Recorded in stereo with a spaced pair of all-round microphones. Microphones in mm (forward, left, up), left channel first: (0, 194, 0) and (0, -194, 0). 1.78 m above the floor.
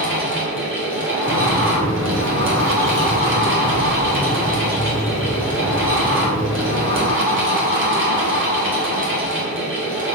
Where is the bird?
40° left (ahead or behind), 1.0 m.